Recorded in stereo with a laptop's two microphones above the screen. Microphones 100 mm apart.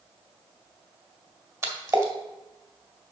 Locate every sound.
1.6 s a splash: 30° right (ahead or behind), 2.5 m